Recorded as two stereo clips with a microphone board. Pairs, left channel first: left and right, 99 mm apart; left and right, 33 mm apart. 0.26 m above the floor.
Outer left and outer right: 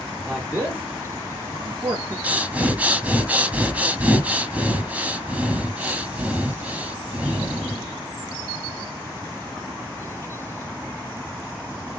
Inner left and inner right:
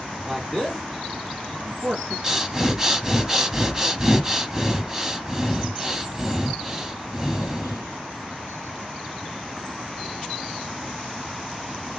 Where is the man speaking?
15° right (ahead or behind), 1.9 m; by 2.1 s 35° right (ahead or behind), 1.2 m.